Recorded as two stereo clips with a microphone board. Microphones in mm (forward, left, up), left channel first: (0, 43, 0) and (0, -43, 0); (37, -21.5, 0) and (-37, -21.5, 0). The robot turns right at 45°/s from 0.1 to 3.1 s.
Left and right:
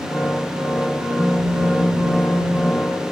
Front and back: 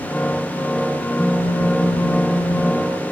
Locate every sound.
1.2 s a phone buzzing: 50° right; by 3.1 s 40° left